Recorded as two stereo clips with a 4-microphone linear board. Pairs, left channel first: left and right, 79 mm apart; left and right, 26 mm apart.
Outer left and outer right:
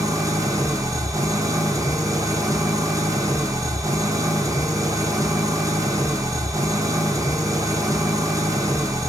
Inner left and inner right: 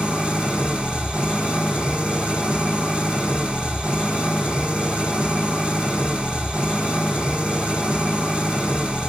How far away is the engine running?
About 1.6 m.